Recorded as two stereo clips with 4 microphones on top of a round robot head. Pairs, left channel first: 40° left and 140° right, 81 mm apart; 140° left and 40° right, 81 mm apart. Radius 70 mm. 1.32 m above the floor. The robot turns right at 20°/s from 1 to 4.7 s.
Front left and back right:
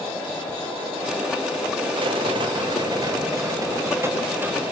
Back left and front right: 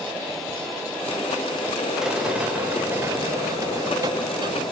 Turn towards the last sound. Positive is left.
turn(degrees=-70)